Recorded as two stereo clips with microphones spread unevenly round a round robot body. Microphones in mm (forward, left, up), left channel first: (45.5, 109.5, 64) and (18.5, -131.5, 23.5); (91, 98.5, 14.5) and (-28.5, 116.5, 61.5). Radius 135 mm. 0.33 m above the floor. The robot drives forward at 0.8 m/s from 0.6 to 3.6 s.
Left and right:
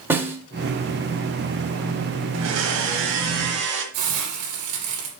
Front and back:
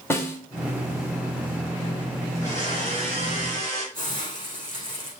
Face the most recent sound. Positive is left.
turn(degrees=-115)